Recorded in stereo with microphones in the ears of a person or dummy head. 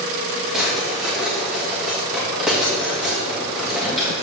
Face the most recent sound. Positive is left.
turn(degrees=0)  # may be behind; listen again after turning